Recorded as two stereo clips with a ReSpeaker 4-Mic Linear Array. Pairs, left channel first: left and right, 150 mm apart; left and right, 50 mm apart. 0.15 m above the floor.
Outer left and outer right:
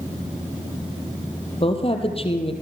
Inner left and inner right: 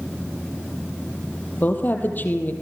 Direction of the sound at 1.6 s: 40° left (ahead or behind).